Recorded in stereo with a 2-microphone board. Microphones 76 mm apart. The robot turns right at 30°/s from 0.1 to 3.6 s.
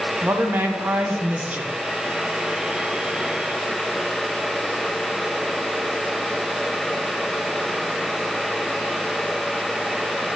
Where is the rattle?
I don't hear a rattle.